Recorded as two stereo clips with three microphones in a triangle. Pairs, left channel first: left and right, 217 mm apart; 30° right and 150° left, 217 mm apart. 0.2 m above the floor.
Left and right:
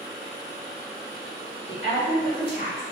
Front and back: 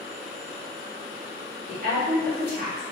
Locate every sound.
1.7 s a woman speaking: 140° left, 1.9 m